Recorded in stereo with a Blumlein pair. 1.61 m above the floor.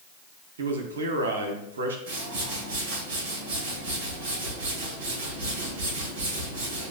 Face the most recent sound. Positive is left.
turn(degrees=-50)